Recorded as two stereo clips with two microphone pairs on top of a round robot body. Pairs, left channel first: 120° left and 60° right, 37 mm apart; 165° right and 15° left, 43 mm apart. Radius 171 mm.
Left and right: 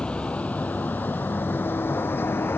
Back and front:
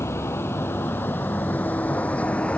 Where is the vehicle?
Straight behind; by 2.6 s 135° left.